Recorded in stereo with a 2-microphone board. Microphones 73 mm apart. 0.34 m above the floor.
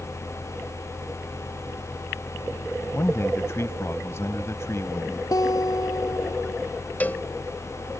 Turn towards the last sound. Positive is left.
turn(degrees=20)  # may be behind; listen again after turning